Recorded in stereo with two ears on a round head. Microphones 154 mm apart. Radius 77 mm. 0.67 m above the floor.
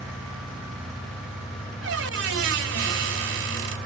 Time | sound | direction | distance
1.8 | a squeak | 70° right (ahead or behind) | 1.8 m